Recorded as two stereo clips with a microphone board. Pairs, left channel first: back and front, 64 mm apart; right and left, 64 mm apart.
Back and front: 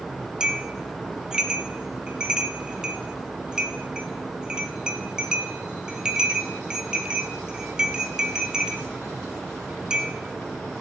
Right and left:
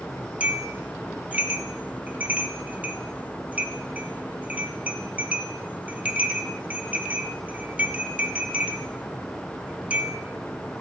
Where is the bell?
55° left, 0.5 m.